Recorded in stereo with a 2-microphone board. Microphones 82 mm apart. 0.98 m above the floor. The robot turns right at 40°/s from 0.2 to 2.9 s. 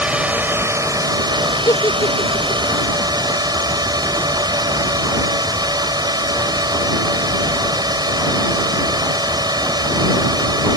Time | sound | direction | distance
0.0 | a drone | 165° right | ?
1.6 | a giggle | 50° left (ahead or behind) | ?